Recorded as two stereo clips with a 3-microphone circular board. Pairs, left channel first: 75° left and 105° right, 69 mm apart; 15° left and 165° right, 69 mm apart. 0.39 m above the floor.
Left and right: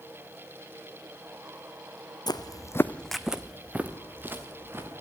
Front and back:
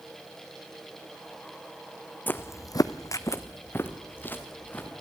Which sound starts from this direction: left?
Footsteps, at 2.3 s.